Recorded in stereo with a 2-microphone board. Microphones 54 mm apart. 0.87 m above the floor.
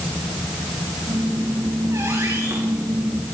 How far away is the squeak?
About 8.5 m.